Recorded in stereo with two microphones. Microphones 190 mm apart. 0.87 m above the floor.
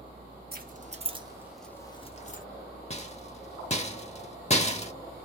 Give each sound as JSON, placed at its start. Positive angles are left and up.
{"t": 0.5, "sound": "keys jangling", "side_deg": -50, "distance_m": 1.0}
{"t": 2.9, "sound": "a rattle", "side_deg": 35, "distance_m": 0.7}